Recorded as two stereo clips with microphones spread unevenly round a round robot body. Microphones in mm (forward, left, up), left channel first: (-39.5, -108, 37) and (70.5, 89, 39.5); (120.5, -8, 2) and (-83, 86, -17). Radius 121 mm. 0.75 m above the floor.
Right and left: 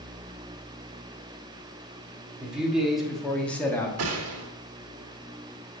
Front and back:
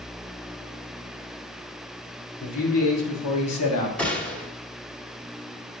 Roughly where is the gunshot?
Ahead left.